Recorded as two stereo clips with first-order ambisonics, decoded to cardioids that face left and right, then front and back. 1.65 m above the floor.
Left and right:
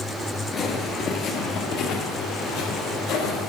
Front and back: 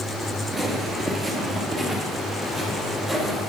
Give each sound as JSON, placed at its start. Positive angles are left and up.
{"t": 0.5, "sound": "footsteps", "azimuth_deg": 90, "distance_m": 1.7}